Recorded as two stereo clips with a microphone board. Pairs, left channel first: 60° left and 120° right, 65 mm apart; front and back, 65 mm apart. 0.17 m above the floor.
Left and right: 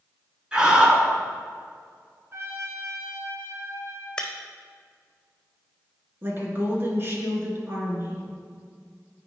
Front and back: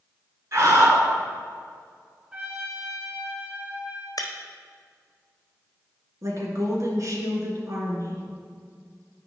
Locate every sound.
0.5 s a scream: 170° left, 2 m
2.3 s a trumpet: 120° right, 1.1 m
4.2 s breaking glass: 20° right, 1.1 m
6.2 s a woman speaking: 165° right, 2 m